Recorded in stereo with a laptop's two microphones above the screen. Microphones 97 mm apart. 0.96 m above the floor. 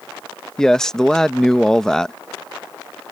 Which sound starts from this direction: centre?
A man speaking, at 0.6 s.